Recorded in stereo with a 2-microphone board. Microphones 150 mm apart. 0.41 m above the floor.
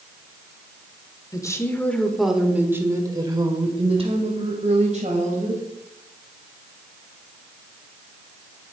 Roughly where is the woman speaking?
Left.